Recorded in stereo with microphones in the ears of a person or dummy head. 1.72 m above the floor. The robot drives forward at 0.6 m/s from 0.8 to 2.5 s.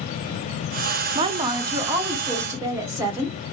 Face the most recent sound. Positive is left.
turn(degrees=-10)  # may be behind; listen again after turning